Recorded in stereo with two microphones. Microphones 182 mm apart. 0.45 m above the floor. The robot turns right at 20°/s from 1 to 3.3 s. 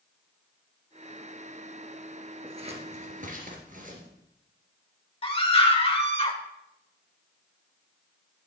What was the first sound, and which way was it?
Scissors, 30° right (ahead or behind).